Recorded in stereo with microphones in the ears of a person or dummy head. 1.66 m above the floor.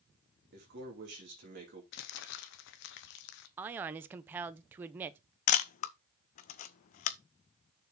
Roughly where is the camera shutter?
Left.